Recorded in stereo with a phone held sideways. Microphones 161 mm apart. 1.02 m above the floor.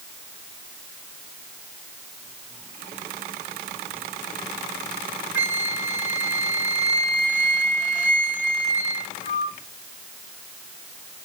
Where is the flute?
50° left (ahead or behind), 1.2 m.